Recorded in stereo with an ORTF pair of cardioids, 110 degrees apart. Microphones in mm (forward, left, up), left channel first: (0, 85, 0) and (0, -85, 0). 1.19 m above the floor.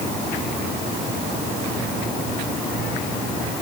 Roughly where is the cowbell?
No cowbell in this recording.